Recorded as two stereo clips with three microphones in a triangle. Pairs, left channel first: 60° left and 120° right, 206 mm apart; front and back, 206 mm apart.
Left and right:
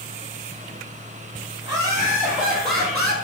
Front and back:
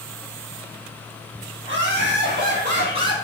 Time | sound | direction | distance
1.6 | laughter | 175° right | 3 m